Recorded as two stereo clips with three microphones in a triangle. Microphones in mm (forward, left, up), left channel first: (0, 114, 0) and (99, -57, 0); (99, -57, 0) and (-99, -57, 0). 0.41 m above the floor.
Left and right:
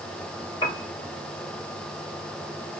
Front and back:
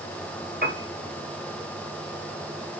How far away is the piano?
About 2 m.